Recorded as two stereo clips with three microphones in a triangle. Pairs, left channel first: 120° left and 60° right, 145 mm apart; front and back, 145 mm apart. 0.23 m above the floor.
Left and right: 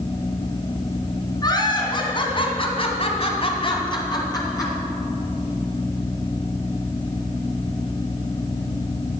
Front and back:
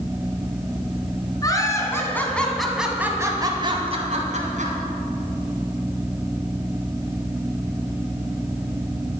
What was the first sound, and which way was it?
Laughter, 60° left.